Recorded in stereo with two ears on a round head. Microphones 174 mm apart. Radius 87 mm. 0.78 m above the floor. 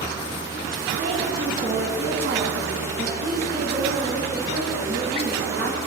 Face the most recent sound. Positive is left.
turn(degrees=-55)  # may be behind; listen again after turning